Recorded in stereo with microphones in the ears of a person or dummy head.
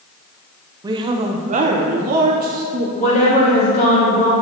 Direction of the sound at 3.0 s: 40° left (ahead or behind).